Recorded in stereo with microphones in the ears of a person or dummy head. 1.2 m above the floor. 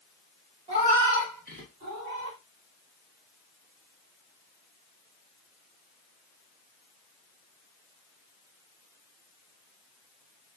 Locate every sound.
0.7 s a cat meowing: 35° right (ahead or behind), 1.5 m; by 2.4 s 60° right (ahead or behind), 1.8 m